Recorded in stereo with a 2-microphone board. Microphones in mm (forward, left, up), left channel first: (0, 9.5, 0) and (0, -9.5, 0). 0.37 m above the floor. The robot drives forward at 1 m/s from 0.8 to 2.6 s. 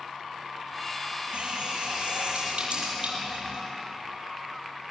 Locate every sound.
1.3 s a running tap: 80° right, 7 m; by 3.6 s 70° right (ahead or behind), 7.5 m